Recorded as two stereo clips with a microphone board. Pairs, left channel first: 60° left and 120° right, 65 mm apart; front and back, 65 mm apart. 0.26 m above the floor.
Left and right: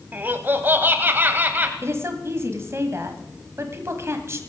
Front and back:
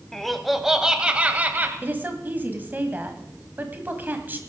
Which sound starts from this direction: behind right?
A woman speaking, at 1.8 s.